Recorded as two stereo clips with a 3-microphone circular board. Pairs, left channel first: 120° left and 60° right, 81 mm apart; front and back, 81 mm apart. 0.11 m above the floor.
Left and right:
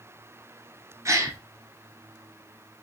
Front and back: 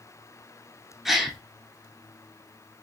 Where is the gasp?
90° right, 0.6 m.